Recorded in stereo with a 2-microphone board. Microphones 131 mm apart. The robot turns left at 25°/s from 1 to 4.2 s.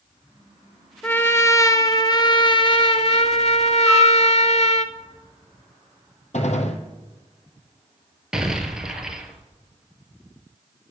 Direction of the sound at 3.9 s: 10° right (ahead or behind).